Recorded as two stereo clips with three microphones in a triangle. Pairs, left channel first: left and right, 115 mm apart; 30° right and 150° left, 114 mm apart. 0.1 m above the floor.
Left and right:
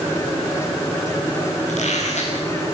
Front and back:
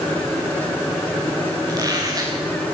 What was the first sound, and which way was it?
A squeak, 95° left.